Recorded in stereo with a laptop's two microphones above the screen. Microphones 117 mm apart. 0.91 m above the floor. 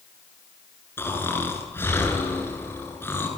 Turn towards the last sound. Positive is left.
turn(degrees=20)  # may be behind; listen again after turning